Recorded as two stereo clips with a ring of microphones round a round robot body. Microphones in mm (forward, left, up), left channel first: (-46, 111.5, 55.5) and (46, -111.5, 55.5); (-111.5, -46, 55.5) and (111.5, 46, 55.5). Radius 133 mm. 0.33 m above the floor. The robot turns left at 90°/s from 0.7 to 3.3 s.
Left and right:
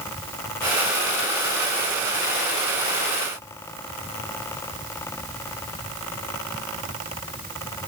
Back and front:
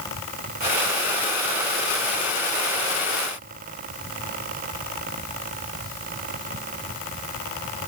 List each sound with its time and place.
Only background noise.